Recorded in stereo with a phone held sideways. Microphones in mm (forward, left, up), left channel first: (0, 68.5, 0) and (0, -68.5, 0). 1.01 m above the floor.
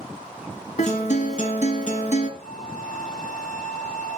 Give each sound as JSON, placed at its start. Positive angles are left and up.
{"t": 0.8, "sound": "a guitar", "side_deg": 55, "distance_m": 2.0}
{"t": 2.4, "sound": "a flute", "side_deg": 55, "distance_m": 4.5}